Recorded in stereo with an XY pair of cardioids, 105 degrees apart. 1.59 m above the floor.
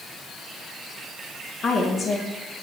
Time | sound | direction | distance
1.6 | a woman speaking | 60° left | 1.4 m